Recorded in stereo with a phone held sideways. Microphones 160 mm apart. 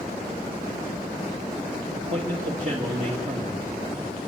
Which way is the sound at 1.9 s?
50° right (ahead or behind).